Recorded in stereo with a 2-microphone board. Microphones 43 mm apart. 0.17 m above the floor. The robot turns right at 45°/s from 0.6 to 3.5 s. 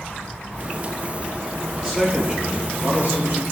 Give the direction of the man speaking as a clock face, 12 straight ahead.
5 o'clock.